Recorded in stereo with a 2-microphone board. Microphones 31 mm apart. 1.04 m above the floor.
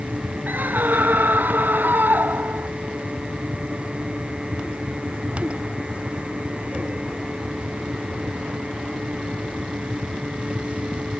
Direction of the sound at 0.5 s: 90° right.